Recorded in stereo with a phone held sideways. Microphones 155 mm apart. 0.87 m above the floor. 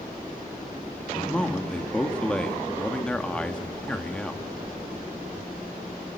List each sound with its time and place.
1.1 s a man speaking: 5° left (ahead or behind), 1.6 m